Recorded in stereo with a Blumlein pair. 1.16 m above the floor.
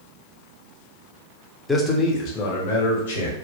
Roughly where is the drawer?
I don't hear a drawer.